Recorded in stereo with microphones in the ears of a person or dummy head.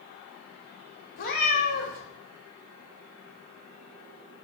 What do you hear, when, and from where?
1.2 s a cat meowing: 45° left (ahead or behind), 1.3 m